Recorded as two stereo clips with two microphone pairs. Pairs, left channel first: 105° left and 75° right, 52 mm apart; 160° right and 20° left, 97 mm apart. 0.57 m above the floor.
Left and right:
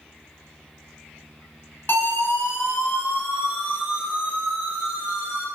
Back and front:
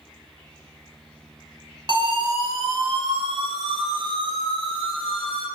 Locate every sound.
1.9 s a siren: 55° left, 10 m; by 5.5 s 45° left, 11.5 m